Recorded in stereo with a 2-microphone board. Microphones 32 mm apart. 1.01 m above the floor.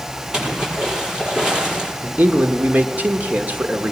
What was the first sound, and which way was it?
A splash, 25° right (ahead or behind).